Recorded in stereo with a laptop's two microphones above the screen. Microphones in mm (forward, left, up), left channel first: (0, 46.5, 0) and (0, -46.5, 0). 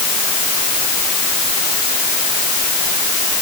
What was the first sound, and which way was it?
Only background noise.